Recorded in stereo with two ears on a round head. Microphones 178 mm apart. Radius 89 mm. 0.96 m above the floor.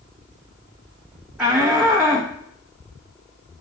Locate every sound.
1.4 s a shout: 5° right (ahead or behind), 0.8 m